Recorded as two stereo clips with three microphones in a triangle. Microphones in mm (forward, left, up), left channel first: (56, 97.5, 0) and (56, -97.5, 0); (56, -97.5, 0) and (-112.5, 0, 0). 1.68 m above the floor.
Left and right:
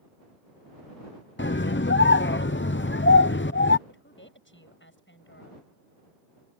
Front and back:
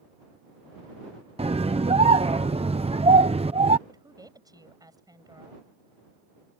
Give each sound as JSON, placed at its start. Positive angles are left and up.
{"t": 1.4, "sound": "a scream", "azimuth_deg": 95}
{"t": 3.9, "sound": "a woman speaking", "azimuth_deg": 80}